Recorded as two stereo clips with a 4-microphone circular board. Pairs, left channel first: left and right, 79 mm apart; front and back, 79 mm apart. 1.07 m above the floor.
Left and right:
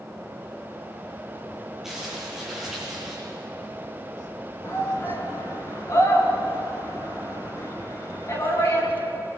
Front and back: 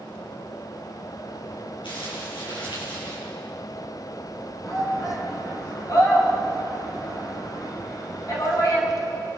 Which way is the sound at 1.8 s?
5° right.